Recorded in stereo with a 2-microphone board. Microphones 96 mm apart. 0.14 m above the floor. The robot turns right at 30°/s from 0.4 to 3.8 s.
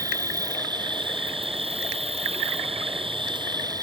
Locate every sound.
0.0 s an insect: 145° right; by 3.8 s 40° right